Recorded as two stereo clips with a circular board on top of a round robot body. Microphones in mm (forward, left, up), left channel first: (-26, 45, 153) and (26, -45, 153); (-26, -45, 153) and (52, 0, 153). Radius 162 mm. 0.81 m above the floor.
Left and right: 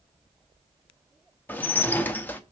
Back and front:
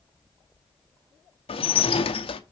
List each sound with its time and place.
1.5 s dishes clattering: 165° right, 0.7 m